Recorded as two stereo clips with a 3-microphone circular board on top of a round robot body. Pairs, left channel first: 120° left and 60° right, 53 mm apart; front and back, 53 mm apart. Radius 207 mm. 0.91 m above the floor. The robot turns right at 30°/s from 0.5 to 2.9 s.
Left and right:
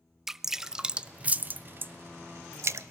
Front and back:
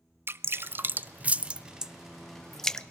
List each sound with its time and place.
0.3 s dripping: 145° right, 0.8 m; by 2.9 s 70° right, 0.8 m